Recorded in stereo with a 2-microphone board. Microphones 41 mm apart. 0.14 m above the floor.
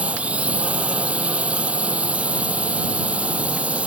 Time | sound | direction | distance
0.0 | a drone | 30° right (ahead or behind) | ?